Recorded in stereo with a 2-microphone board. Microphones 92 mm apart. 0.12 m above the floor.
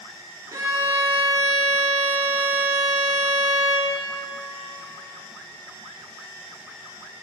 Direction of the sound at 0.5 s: 35° right (ahead or behind).